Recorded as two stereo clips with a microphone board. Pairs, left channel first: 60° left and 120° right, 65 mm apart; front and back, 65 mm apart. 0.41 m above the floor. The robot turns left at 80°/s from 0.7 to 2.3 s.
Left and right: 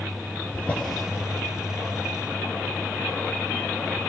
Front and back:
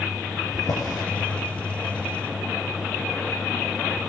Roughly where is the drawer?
Ahead.